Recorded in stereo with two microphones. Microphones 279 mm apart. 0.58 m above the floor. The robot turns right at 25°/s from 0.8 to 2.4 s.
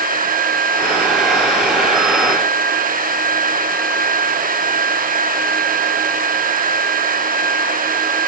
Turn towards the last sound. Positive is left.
No sound to turn to.